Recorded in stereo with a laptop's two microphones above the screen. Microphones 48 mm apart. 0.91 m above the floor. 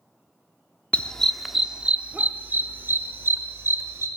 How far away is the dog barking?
About 0.6 m.